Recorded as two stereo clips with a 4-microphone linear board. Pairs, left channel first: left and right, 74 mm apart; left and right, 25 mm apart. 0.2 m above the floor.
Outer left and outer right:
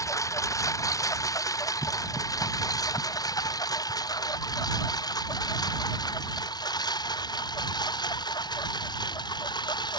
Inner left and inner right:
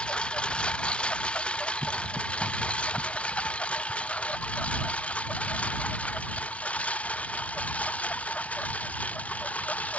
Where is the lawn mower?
45° left (ahead or behind); by 10.0 s 65° left (ahead or behind).